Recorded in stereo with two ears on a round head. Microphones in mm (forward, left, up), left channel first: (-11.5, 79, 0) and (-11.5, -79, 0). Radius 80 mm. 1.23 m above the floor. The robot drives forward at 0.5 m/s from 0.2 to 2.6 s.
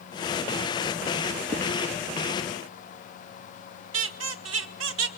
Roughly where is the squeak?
Right.